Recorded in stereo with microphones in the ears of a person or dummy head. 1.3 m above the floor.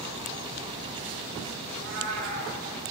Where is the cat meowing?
65° right (ahead or behind), 6 m.